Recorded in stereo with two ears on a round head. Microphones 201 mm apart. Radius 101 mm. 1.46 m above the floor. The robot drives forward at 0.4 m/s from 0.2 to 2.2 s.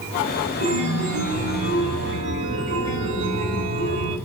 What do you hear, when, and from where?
0.6 s a chime: 35° right (ahead or behind), 4.5 m; by 4.2 s 30° right (ahead or behind), 5 m